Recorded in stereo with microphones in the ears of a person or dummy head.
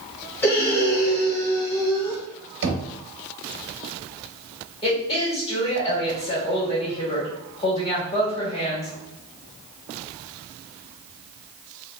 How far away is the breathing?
About 0.9 m.